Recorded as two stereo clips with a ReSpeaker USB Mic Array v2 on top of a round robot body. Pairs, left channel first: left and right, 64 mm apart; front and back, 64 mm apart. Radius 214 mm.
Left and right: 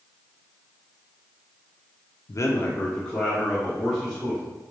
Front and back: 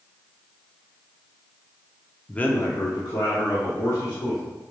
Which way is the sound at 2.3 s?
80° left.